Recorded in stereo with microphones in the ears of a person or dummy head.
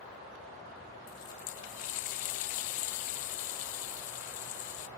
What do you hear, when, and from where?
1.1 s a running tap: 40° left (ahead or behind), 0.6 m